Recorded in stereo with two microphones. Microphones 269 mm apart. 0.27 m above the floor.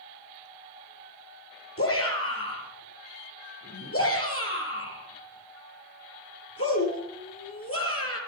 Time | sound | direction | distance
1.8 | a shout | 55° left (ahead or behind) | 5 m